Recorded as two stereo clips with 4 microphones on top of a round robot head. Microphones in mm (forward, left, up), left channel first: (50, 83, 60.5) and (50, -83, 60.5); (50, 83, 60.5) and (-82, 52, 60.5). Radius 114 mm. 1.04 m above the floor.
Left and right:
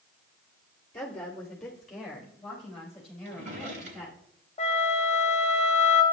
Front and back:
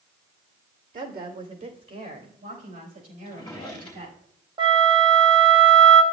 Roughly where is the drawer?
Right.